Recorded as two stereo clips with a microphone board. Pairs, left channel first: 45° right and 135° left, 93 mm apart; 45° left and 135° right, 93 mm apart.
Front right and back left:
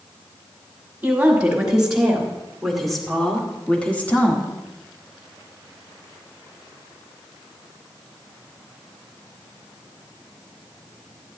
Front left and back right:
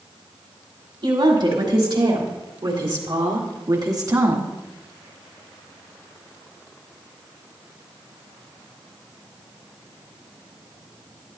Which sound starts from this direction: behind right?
A woman speaking, at 1.0 s.